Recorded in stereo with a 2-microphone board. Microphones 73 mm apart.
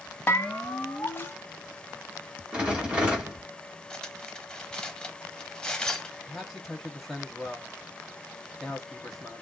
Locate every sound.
0.3 s a bell: 25° left (ahead or behind), 0.6 m
2.5 s a rattle: 15° right (ahead or behind), 1.6 m
3.9 s cutlery clinking: 10° left (ahead or behind), 0.6 m
6.3 s a man speaking: centre (ahead or behind), 1.1 m